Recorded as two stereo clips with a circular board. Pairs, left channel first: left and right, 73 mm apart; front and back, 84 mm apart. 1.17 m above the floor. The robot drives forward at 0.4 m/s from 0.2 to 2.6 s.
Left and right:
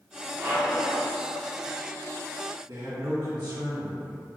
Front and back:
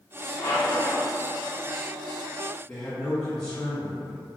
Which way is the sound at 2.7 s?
80° right.